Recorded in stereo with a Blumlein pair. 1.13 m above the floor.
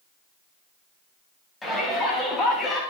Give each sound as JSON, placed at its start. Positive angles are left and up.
{"t": 1.6, "sound": "a shout", "azimuth_deg": 10, "distance_m": 9.5}